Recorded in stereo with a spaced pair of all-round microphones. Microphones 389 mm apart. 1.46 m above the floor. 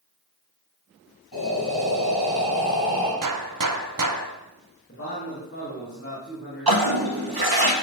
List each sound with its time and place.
1.3 s breathing: 65° left (ahead or behind), 3.5 m
3.2 s a gunshot: 55° right (ahead or behind), 0.5 m
4.9 s a man speaking: 35° left (ahead or behind), 2 m
6.7 s a toilet flushing: 70° right (ahead or behind), 1.0 m